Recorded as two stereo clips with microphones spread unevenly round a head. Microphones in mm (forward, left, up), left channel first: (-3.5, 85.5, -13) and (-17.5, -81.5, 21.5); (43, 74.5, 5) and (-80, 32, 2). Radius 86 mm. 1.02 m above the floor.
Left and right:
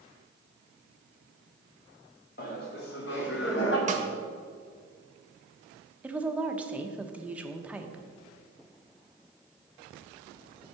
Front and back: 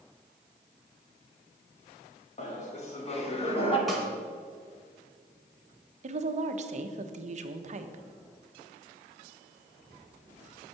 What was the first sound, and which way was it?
Laughter, 50° left.